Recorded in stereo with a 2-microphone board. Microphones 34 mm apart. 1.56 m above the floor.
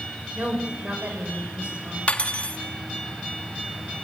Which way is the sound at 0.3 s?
45° right (ahead or behind).